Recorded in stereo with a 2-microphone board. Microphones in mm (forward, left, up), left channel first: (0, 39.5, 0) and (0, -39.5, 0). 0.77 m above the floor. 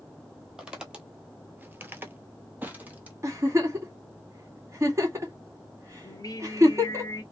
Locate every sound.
0.6 s footsteps: 5° right (ahead or behind), 1.3 m; by 3.1 s 20° right (ahead or behind), 1.5 m
3.2 s a giggle: 40° right (ahead or behind), 1.5 m
6.0 s singing: 55° left (ahead or behind), 0.8 m